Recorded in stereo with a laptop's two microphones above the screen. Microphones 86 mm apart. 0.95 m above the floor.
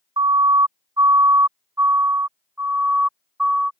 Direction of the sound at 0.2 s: 55° right (ahead or behind).